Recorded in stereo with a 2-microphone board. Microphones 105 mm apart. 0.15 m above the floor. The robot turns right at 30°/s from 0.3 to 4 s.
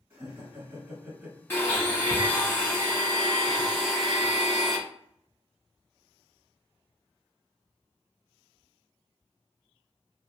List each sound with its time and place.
0.1 s laughter: 25° right (ahead or behind), 1.9 m; by 1.4 s 5° right (ahead or behind), 1.9 m
1.5 s a blender: 20° left (ahead or behind), 1.3 m; by 4.8 s centre (ahead or behind), 1.3 m